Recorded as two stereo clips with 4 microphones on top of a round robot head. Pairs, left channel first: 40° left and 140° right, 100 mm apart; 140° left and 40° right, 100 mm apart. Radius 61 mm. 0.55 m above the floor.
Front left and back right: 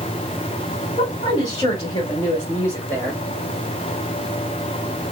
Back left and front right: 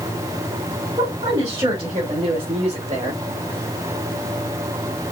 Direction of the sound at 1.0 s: 5° left.